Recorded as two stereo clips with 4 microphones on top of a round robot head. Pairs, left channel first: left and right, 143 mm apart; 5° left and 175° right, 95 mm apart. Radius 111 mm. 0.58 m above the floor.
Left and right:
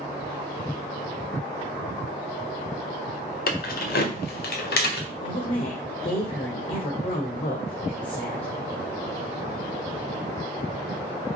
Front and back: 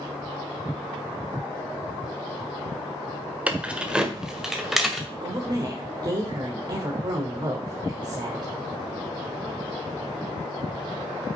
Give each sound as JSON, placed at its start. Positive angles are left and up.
{"t": 3.5, "sound": "keys jangling", "azimuth_deg": 110, "distance_m": 1.5}
{"t": 5.1, "sound": "a woman speaking", "azimuth_deg": 145, "distance_m": 1.9}